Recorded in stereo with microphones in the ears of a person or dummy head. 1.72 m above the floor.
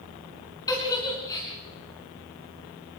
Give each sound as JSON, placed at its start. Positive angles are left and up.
{"t": 0.7, "sound": "a giggle", "side_deg": 15, "distance_m": 4.5}